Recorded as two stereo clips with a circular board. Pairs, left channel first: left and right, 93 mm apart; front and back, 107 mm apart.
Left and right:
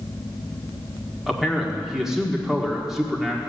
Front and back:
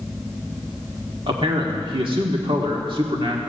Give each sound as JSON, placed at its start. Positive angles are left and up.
{"t": 1.3, "sound": "a man speaking", "azimuth_deg": -175, "distance_m": 1.6}